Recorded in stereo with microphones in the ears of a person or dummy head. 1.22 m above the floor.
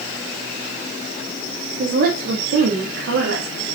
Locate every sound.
1.8 s a woman speaking: 45° right (ahead or behind), 1.6 m; by 3.8 s 85° right, 2.5 m